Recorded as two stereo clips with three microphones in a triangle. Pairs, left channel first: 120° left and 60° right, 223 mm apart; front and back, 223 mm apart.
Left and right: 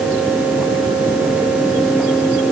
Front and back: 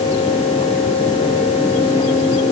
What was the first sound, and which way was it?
Only background noise.